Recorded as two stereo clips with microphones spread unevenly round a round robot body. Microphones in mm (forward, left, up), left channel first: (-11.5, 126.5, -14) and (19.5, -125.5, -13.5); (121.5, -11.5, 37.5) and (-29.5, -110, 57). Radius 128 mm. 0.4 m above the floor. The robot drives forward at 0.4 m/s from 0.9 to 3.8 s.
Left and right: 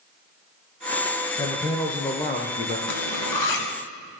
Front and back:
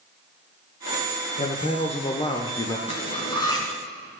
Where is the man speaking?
25° left, 1.1 m; by 2.8 s 65° left, 0.9 m.